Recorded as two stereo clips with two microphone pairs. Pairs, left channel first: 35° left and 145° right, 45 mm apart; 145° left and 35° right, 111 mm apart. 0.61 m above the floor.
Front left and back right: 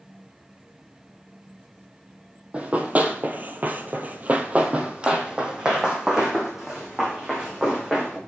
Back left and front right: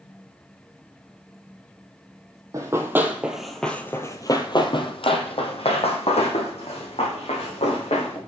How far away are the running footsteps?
About 1.0 m.